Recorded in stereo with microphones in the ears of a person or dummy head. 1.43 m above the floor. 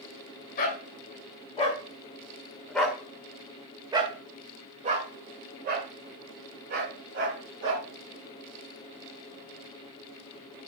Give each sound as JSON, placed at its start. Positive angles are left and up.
{"t": 0.6, "sound": "a dog barking", "side_deg": 45, "distance_m": 2.0}